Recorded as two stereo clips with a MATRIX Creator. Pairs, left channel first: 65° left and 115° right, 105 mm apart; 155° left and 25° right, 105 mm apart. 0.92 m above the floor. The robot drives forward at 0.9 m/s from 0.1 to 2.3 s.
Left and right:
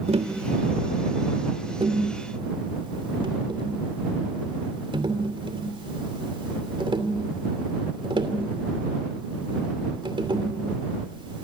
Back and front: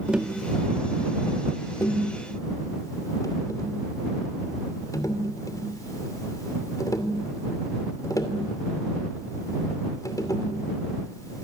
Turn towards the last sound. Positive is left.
turn(degrees=-145)